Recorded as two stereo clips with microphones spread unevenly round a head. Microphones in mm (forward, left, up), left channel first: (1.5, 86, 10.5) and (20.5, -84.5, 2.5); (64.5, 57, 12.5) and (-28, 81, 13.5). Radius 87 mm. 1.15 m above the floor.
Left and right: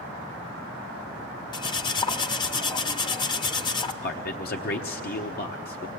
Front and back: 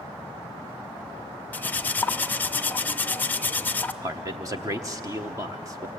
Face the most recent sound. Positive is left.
turn(degrees=120)